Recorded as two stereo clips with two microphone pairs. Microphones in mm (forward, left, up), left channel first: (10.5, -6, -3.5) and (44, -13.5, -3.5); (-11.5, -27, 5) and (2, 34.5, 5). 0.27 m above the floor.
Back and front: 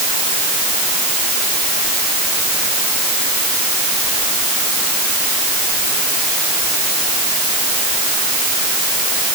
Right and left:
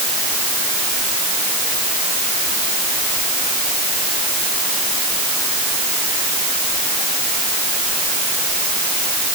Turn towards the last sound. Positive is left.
No sound to turn to.